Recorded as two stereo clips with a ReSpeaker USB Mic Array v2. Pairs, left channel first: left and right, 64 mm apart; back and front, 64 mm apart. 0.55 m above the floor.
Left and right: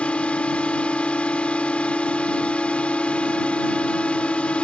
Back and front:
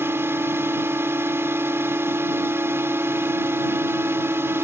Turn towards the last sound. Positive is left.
turn(degrees=25)